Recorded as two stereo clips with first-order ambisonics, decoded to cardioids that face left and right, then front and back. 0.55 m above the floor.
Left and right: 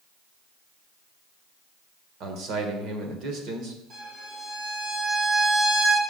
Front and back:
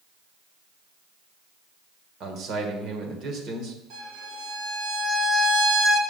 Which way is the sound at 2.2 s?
130° right.